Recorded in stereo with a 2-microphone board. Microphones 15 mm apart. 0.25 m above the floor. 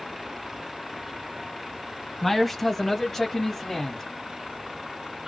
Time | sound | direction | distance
2.2 | a man speaking | 10° left (ahead or behind) | 1.5 m